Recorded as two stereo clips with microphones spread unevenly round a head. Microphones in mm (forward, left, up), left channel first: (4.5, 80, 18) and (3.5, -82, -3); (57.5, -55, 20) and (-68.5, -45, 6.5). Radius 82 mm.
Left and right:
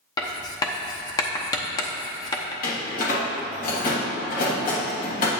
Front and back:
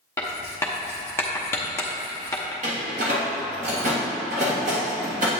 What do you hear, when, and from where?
0.2 s writing: 50° left, 0.8 m
2.6 s a door slam: 130° left, 1.5 m